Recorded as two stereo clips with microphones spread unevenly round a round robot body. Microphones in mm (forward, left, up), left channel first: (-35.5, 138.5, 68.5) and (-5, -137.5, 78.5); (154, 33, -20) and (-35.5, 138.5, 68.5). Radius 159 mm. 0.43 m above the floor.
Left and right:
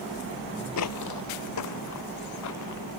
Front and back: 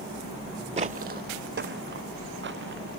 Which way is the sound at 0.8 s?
125° left.